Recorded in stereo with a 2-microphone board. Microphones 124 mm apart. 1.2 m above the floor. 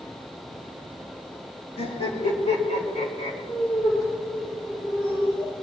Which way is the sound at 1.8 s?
60° left (ahead or behind).